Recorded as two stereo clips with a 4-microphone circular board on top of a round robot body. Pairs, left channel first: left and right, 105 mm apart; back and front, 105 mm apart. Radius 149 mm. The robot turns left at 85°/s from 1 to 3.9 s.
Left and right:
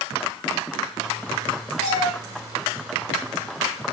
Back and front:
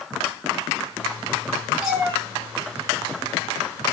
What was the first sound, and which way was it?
A cat meowing, 90° left.